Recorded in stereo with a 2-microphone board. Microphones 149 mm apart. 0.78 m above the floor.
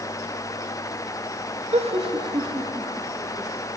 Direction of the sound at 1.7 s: 50° right (ahead or behind).